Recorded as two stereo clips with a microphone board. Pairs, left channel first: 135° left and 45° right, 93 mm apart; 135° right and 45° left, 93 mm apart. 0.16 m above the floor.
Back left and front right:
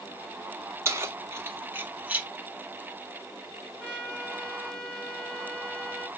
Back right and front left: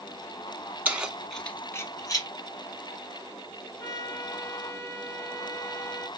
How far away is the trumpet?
About 1.8 m.